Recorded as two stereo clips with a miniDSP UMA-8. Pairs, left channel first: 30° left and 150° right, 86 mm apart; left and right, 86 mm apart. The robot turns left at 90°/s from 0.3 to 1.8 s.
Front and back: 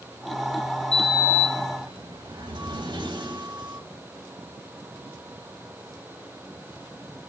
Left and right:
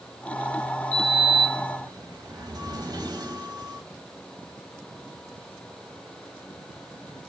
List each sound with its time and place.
0.9 s a sliding door: 50° right, 3 m; by 3.8 s 130° right, 3 m